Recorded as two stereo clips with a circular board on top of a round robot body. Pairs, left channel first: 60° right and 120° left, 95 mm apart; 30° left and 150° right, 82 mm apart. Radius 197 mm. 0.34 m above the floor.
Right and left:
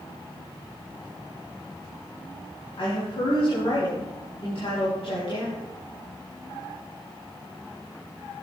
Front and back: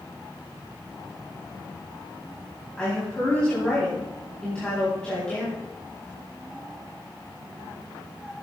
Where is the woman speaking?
50° right, 4.5 m.